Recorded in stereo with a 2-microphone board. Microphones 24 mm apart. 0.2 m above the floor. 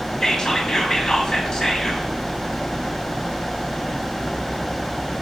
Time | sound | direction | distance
0.2 | whispering | 25° left (ahead or behind) | 1.1 m